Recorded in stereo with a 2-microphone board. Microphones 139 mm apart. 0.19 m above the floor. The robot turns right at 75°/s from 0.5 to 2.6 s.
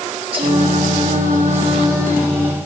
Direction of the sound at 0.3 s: 135° right.